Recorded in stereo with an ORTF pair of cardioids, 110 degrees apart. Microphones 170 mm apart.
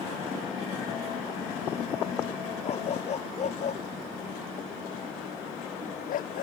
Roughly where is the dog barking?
Ahead left.